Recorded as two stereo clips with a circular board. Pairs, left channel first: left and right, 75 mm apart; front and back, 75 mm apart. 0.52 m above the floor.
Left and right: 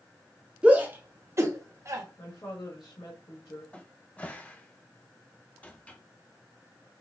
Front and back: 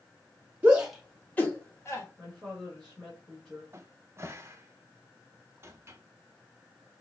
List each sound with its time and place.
0.6 s a shout: 150° right, 0.8 m; by 2.0 s 45° right, 1.7 m
2.2 s a woman speaking: 90° left, 2 m
3.7 s a cupboard door: 155° left, 0.5 m